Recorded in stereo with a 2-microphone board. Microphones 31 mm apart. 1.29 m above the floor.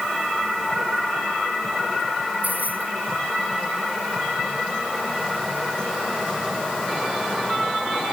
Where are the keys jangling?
85° right.